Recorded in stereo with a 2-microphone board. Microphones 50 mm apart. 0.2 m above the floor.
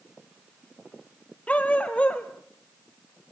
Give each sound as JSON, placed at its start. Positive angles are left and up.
{"t": 1.5, "sound": "a dog barking", "side_deg": 25, "distance_m": 1.9}